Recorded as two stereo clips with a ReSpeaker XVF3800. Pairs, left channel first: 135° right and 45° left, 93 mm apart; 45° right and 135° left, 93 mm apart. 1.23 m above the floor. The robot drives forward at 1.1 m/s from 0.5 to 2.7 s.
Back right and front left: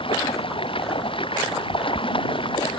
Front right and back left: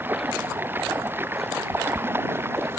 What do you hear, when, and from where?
0.0 s running water: 155° right; by 2.8 s 160° right